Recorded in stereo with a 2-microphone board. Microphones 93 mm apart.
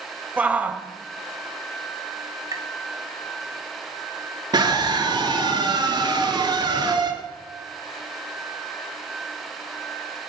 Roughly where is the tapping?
Right.